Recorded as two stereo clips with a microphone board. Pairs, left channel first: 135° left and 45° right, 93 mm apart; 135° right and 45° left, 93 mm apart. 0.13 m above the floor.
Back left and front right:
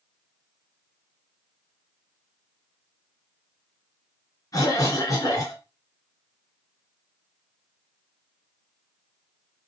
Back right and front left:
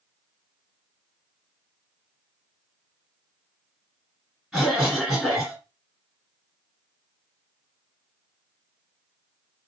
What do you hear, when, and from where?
4.5 s a cough: 130° left, 1.9 m